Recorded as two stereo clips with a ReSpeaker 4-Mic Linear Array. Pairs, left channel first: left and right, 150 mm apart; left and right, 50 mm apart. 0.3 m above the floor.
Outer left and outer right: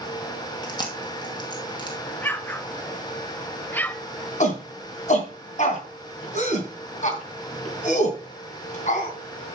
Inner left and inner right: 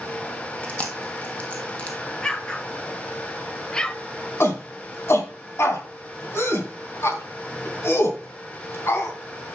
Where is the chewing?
25° left (ahead or behind), 1.8 m.